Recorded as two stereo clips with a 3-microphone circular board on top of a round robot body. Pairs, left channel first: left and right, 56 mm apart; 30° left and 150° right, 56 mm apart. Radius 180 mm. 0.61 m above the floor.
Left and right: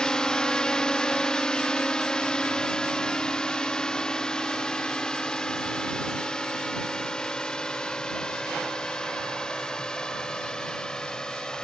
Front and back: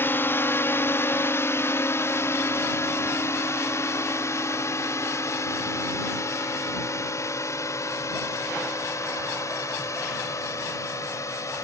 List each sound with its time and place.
0.0 s a drone: 20° left; by 11.7 s 15° left